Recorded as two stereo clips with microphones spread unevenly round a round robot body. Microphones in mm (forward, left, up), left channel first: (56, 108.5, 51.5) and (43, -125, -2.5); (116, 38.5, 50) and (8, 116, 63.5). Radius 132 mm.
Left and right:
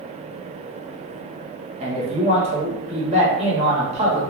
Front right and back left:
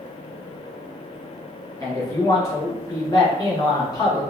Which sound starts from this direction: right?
A man speaking, at 1.8 s.